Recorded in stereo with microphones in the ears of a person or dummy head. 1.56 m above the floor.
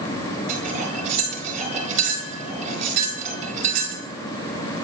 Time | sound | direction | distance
0.5 | cutlery clinking | 40° right (ahead or behind) | 3 m